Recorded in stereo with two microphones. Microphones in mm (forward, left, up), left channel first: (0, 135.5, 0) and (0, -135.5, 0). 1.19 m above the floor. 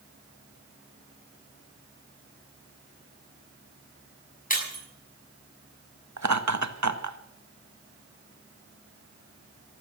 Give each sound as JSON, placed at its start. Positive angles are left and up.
{"t": 4.5, "sound": "breaking glass", "side_deg": 30, "distance_m": 6.0}
{"t": 6.2, "sound": "laughter", "side_deg": -75, "distance_m": 1.6}